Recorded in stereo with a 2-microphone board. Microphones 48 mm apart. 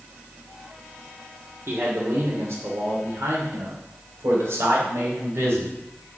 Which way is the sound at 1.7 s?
70° right (ahead or behind).